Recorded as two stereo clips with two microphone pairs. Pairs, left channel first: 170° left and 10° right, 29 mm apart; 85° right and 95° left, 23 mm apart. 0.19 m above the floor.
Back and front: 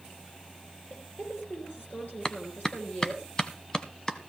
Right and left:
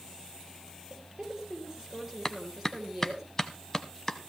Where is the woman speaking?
170° left, 4.5 m.